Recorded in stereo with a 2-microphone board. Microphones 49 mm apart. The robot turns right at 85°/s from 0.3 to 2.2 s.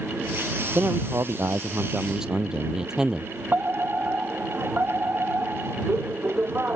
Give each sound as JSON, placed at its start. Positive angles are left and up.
{"t": 0.8, "sound": "a man speaking", "azimuth_deg": -135}
{"t": 3.5, "sound": "a fire alarm", "side_deg": -40}